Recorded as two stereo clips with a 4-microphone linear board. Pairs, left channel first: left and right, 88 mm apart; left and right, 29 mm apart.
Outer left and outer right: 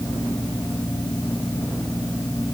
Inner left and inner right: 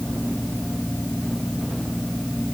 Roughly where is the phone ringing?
I don't hear a phone ringing.